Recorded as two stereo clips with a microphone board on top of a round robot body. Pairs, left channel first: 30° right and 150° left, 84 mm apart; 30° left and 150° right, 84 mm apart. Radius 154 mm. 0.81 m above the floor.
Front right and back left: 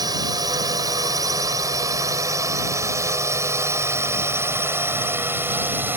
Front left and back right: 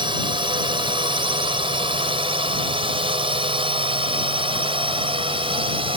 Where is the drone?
170° right; by 6.0 s 140° right.